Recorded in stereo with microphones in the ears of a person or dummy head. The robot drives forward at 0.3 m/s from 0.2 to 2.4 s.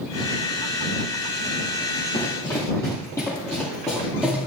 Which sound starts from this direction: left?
Running footsteps, at 2.1 s.